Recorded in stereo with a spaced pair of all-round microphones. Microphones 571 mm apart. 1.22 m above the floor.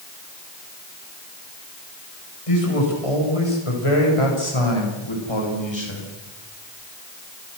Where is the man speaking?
70° left (ahead or behind), 6 m; by 6.1 s 45° left (ahead or behind), 6 m.